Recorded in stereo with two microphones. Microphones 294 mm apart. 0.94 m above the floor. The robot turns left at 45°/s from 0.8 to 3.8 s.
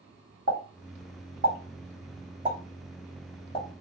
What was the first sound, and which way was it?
A pop, 70° right (ahead or behind).